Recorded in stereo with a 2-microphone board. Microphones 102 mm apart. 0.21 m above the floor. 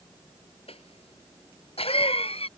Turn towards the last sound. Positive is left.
turn(degrees=75)  # may be behind; listen again after turning